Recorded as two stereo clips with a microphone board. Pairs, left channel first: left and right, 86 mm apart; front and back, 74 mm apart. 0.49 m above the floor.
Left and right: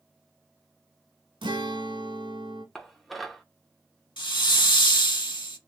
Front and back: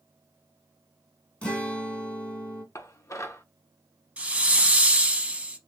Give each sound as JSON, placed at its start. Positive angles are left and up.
{"t": 1.4, "sound": "a guitar", "azimuth_deg": -75, "distance_m": 1.0}
{"t": 2.8, "sound": "dishes clattering", "azimuth_deg": 0, "distance_m": 0.6}
{"t": 4.2, "sound": "a hiss", "azimuth_deg": 110, "distance_m": 0.7}